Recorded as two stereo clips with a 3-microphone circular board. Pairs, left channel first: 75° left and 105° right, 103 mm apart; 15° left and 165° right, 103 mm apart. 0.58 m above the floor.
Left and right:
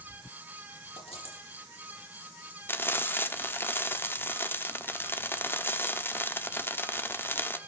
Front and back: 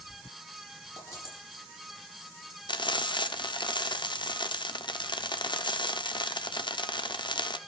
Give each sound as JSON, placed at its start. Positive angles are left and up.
{"t": 1.0, "sound": "a dropped coin", "azimuth_deg": 75, "distance_m": 8.0}
{"t": 2.7, "sound": "frying", "azimuth_deg": 15, "distance_m": 0.9}